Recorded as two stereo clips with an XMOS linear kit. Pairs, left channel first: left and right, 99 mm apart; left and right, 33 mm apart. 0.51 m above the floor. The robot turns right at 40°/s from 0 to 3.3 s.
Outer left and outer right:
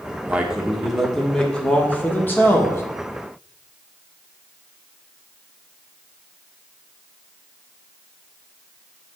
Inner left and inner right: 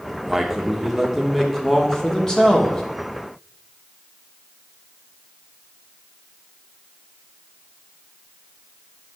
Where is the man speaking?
10° right (ahead or behind), 1.2 m; by 2.8 s 25° left (ahead or behind), 1.2 m.